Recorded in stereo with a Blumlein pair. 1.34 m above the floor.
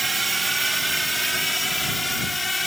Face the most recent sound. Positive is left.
turn(degrees=5)